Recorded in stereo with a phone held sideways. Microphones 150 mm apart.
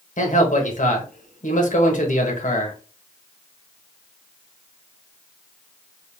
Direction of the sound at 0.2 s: 60° left (ahead or behind).